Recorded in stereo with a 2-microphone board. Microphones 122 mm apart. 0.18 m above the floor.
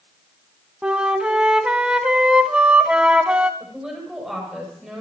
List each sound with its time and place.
0.8 s a flute: 10° right (ahead or behind), 0.8 m
3.6 s a woman speaking: centre (ahead or behind), 6.5 m